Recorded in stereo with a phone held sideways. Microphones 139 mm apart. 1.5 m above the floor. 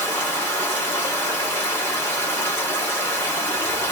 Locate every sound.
0.0 s running water: 15° left (ahead or behind), 1.1 m